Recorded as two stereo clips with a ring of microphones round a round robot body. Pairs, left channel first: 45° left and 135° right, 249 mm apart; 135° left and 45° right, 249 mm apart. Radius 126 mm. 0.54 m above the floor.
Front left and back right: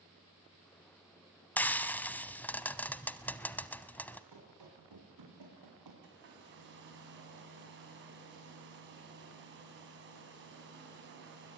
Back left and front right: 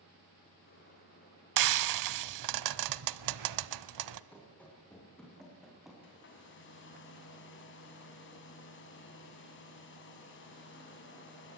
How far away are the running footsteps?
About 8 m.